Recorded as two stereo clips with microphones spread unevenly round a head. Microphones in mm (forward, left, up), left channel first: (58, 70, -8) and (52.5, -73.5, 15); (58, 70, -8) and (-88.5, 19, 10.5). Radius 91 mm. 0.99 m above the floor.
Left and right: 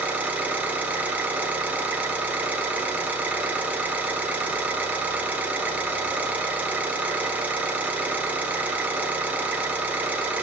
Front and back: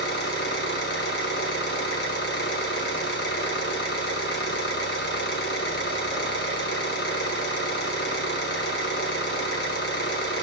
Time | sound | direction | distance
0.0 | an engine running | 10° right | 3 m